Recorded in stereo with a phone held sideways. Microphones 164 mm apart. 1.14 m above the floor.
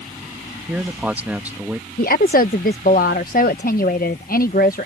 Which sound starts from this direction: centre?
A man speaking, at 0.7 s.